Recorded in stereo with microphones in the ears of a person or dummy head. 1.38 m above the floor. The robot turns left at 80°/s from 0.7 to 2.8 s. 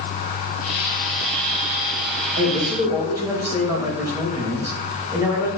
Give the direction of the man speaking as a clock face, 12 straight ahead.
4 o'clock.